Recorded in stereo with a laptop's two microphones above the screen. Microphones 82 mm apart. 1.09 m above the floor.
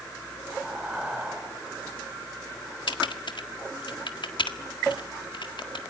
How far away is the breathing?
About 3.5 m.